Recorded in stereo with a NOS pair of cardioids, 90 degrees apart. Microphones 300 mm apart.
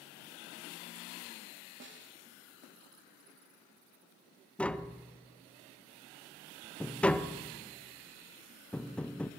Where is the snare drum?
40° right, 3 m.